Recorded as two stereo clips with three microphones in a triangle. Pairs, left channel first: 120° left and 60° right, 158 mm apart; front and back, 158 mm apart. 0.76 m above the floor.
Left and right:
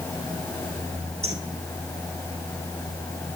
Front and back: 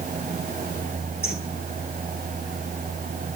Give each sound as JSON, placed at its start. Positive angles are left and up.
{"t": 1.2, "sound": "a bird", "azimuth_deg": -10, "distance_m": 9.5}